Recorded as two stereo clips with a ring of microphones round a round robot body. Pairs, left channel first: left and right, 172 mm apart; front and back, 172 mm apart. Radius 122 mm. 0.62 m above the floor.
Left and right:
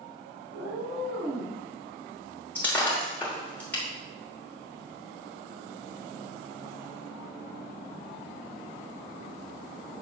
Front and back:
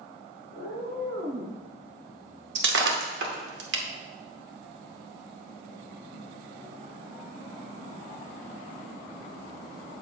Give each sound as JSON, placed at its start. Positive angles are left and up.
{"t": 0.5, "sound": "a cat meowing", "azimuth_deg": -115, "distance_m": 1.4}
{"t": 2.5, "sound": "breaking glass", "azimuth_deg": 170, "distance_m": 1.0}